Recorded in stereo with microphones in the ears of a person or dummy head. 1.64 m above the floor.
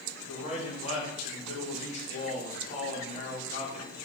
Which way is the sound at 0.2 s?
35° left (ahead or behind).